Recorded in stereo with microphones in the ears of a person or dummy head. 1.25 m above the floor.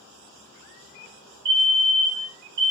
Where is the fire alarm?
25° right (ahead or behind), 1.2 m.